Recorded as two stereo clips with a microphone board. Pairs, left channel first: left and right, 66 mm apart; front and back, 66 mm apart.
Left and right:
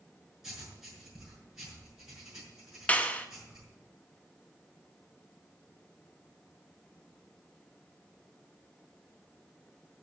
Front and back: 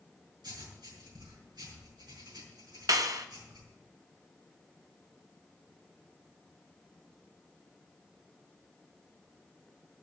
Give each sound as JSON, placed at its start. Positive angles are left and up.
{"t": 0.4, "sound": "writing", "azimuth_deg": -175, "distance_m": 6.0}
{"t": 2.9, "sound": "a clap", "azimuth_deg": 155, "distance_m": 1.0}